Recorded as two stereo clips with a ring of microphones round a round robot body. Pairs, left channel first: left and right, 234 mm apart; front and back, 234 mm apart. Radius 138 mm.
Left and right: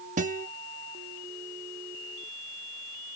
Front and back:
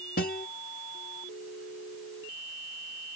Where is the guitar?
45° right, 0.6 m.